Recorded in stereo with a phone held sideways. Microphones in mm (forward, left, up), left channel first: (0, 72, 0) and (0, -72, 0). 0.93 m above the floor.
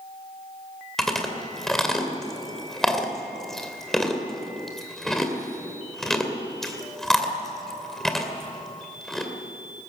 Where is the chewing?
5° left (ahead or behind), 2.5 m.